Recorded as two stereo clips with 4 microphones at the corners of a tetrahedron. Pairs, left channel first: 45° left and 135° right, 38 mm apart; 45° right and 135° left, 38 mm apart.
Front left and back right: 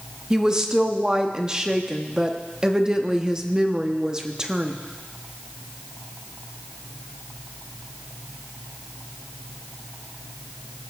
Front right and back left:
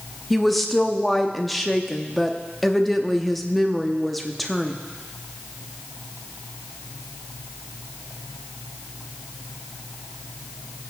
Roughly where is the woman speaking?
Behind right.